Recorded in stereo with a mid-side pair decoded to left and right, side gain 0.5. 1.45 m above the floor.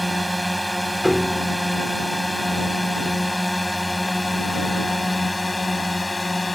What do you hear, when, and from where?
0.0 s a drone: straight ahead; by 6.6 s 15° left
1.0 s a piano: 10° left